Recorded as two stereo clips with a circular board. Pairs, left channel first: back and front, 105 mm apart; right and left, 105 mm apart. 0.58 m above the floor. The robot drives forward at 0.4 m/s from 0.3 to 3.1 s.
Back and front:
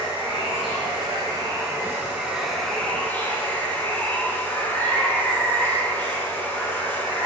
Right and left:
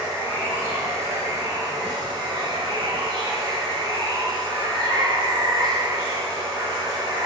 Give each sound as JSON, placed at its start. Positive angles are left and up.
{"t": 0.0, "sound": "running water", "azimuth_deg": 30, "distance_m": 1.1}